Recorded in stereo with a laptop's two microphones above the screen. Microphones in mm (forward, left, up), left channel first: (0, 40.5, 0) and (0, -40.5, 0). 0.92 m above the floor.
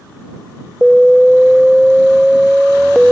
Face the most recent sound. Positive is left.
turn(degrees=0)  # may be behind; listen again after turning